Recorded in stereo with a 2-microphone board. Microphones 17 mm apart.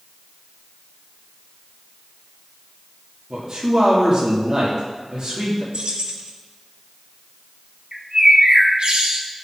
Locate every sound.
3.3 s a man speaking: 45° right (ahead or behind), 2.0 m
5.7 s keys jangling: 75° right (ahead or behind), 1.0 m
7.9 s a bird: 65° right (ahead or behind), 1.3 m